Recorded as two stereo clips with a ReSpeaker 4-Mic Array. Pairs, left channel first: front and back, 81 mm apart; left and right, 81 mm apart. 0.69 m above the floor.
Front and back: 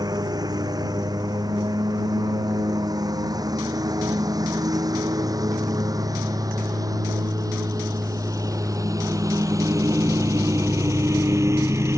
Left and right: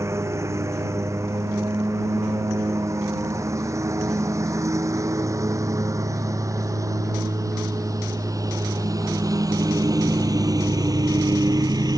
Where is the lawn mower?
145° right; by 12.0 s 125° right.